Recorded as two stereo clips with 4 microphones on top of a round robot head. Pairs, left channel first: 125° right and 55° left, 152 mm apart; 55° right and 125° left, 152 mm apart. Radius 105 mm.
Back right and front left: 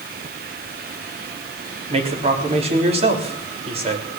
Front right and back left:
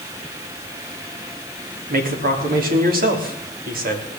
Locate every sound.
1.9 s a man speaking: 105° left, 3.5 m